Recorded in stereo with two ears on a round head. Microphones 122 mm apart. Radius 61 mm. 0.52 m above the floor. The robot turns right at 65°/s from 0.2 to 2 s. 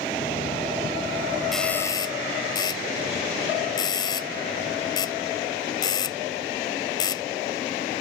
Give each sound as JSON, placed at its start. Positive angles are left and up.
{"t": 1.5, "sound": "a doorbell", "side_deg": 0}